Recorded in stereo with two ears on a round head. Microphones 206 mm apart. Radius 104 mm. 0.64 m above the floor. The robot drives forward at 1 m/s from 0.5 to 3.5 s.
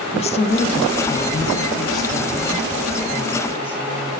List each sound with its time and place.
0.1 s a woman speaking: 30° left (ahead or behind), 1.1 m; by 4.1 s 10° left (ahead or behind), 3 m